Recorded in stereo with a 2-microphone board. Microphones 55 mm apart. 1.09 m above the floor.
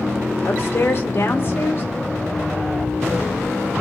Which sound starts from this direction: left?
A woman speaking, at 0.4 s.